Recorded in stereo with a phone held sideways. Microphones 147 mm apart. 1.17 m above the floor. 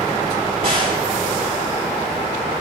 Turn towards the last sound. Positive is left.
turn(degrees=-85)